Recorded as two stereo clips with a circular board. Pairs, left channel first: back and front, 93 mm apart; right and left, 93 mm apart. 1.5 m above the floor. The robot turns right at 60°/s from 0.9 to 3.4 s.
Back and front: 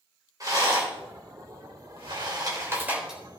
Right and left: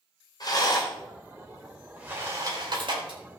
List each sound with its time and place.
0.4 s a rattle: 50° right, 4.5 m; by 3.2 s 90° left, 4.5 m